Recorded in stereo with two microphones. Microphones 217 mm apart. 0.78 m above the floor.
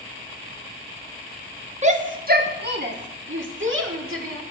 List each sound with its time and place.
1.8 s a shout: 30° right (ahead or behind), 1.1 m; by 4.4 s 70° right (ahead or behind), 2 m